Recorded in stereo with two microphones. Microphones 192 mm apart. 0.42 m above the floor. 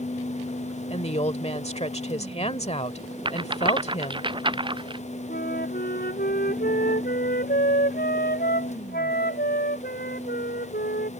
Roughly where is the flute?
Left.